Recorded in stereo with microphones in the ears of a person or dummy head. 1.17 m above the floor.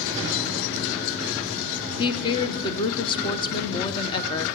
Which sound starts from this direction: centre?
A woman speaking, at 2.0 s.